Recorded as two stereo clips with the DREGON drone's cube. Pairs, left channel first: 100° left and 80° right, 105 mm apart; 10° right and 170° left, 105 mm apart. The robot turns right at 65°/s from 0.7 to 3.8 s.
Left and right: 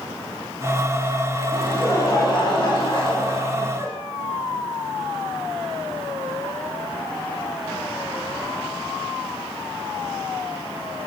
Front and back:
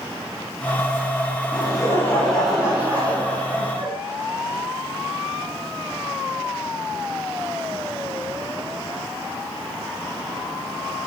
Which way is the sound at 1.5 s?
20° left.